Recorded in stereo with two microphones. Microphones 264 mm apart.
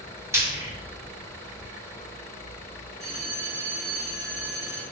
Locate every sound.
0.3 s frying: 10° right (ahead or behind), 1.0 m
3.0 s a bell: 25° right (ahead or behind), 1.2 m